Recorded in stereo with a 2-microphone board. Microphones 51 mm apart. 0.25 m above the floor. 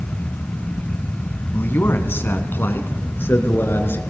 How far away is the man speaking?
About 2 m.